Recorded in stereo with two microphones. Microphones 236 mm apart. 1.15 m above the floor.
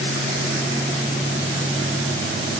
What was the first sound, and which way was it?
Only background noise.